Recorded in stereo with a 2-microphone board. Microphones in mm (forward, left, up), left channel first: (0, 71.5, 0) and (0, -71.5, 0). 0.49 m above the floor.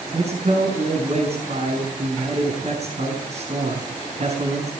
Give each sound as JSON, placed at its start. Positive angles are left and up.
{"t": 0.1, "sound": "a man speaking", "side_deg": -50, "distance_m": 6.0}